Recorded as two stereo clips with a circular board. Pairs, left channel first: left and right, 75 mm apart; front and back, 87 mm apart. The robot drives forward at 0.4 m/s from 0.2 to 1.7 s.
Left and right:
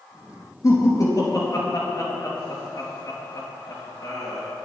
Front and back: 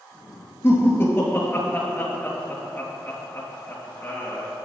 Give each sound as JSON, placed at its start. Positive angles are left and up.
{"t": 0.6, "sound": "laughter", "azimuth_deg": 55, "distance_m": 3.5}